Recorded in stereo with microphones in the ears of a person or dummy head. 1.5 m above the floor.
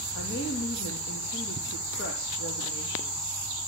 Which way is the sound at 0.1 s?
65° left (ahead or behind).